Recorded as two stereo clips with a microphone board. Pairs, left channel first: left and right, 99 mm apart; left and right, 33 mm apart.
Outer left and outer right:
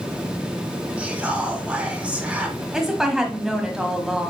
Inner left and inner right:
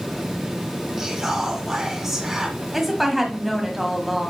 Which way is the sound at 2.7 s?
5° right (ahead or behind).